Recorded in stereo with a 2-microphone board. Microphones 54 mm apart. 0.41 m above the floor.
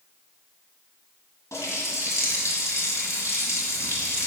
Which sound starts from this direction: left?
A running tap, at 1.5 s.